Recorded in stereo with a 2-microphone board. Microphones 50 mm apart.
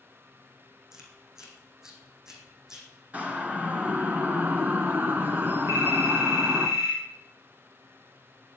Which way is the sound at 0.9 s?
10° right (ahead or behind).